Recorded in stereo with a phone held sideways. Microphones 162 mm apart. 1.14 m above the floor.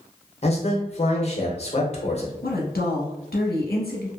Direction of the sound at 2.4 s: 75° left (ahead or behind).